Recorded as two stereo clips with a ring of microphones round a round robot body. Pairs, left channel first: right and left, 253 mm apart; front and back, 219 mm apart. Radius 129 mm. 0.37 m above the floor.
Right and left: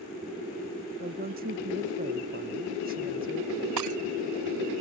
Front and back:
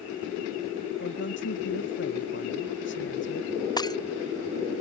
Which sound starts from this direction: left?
Breaking glass, at 3.8 s.